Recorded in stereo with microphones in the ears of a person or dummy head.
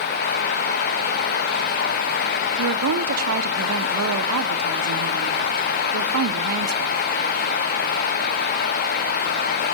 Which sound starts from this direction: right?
A woman speaking, at 2.6 s.